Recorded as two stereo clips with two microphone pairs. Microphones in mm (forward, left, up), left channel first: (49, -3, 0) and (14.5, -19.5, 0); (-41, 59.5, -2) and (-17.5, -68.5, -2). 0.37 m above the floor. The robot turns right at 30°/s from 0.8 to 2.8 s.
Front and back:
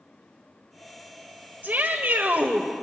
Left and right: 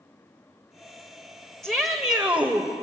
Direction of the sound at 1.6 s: 175° right.